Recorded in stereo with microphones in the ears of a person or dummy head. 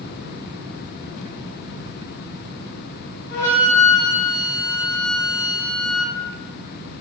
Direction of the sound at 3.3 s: 45° left (ahead or behind).